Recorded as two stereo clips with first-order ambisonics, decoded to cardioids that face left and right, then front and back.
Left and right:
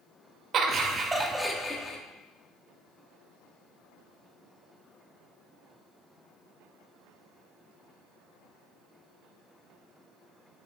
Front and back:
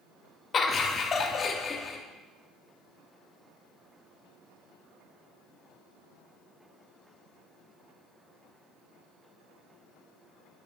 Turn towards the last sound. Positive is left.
turn(degrees=45)